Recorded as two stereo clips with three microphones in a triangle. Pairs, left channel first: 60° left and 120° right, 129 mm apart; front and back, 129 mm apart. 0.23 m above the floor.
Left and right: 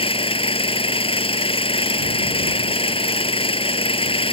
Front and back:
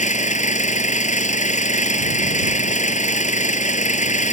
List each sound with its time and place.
0.0 s an engine running: 15° left